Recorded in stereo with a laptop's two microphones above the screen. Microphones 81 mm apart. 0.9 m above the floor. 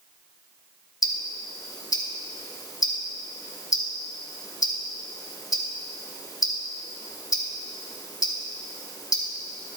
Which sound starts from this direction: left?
Ticking, at 1.0 s.